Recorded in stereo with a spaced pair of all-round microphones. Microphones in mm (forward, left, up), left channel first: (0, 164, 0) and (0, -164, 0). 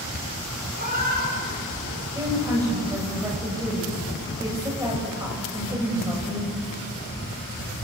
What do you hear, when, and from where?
0.8 s a cat meowing: 30° right (ahead or behind), 6 m
2.1 s a woman speaking: 10° right (ahead or behind), 7 m